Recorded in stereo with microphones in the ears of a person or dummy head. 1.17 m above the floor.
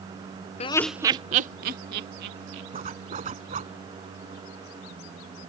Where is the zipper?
35° right (ahead or behind).